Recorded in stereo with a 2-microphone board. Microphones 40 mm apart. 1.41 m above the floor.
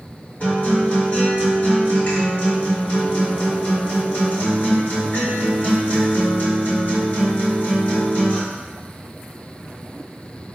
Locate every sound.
0.4 s a guitar: 45° left (ahead or behind), 1.6 m